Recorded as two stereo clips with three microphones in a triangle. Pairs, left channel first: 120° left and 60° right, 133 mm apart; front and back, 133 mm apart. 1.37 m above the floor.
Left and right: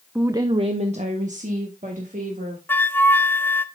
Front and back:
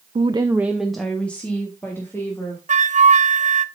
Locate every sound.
0.1 s a woman speaking: 140° right, 0.5 m; by 2.6 s 70° right, 2.5 m
2.7 s a flute: 165° right, 0.5 m